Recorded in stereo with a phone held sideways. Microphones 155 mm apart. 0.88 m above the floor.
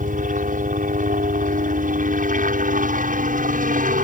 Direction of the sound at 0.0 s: 60° right (ahead or behind).